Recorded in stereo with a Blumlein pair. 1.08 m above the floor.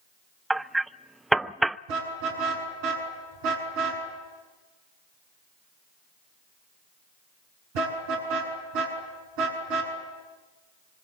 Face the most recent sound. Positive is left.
turn(degrees=-45)